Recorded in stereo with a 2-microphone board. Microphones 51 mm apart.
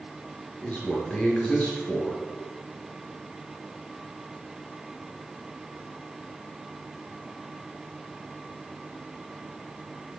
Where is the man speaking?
20° left (ahead or behind), 4 m.